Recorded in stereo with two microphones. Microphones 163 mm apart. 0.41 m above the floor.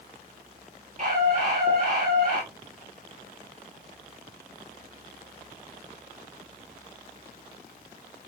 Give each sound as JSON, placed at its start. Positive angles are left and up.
{"t": 1.0, "sound": "a scream", "side_deg": -45, "distance_m": 8.0}